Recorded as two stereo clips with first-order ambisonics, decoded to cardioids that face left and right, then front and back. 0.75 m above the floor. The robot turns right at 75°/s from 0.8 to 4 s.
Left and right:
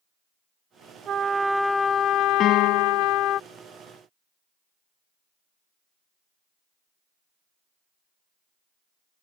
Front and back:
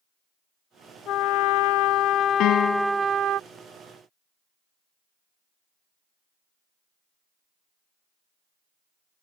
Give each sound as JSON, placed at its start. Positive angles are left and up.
{"t": 1.1, "sound": "a trumpet", "azimuth_deg": -40}
{"t": 2.4, "sound": "a piano", "azimuth_deg": 35}